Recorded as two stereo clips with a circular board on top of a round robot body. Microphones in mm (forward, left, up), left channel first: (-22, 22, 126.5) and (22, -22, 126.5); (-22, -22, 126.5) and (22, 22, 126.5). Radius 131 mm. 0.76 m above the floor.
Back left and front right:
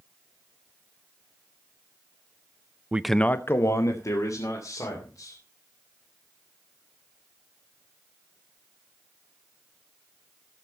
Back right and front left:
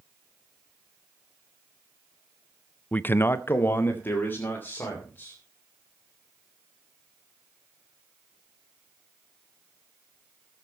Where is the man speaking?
85° right, 0.6 m; by 5.4 s 165° left, 3.5 m.